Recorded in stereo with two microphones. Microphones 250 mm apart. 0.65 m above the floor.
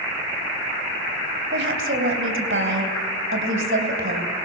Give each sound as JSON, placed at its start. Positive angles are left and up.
{"t": 1.5, "sound": "a woman speaking", "side_deg": -55, "distance_m": 3.0}